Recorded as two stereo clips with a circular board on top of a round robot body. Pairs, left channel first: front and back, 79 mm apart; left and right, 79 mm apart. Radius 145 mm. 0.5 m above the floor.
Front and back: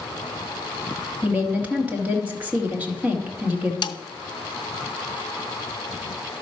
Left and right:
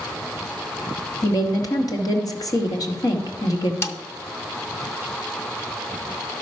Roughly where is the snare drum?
Ahead left.